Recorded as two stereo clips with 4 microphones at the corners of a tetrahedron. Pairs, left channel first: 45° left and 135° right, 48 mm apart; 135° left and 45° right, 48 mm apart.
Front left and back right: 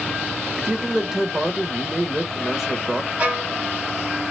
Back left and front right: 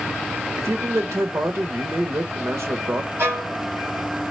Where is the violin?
75° right, 3 m.